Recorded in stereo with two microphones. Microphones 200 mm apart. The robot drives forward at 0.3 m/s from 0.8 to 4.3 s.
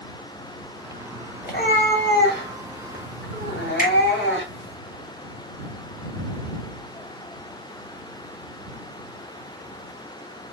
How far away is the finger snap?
About 1.7 m.